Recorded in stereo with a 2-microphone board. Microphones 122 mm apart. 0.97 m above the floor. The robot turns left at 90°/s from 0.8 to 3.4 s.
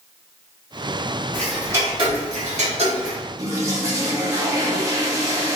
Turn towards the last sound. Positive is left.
turn(degrees=-25)  # may be behind; listen again after turning